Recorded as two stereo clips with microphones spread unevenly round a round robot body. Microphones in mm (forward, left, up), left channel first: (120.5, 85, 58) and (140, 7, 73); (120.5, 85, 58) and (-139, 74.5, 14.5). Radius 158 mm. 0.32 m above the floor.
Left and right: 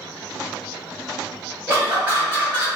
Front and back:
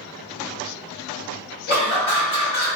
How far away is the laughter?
About 1.8 m.